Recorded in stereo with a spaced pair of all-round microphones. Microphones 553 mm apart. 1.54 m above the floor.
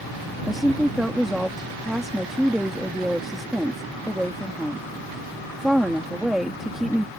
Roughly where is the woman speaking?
Centre.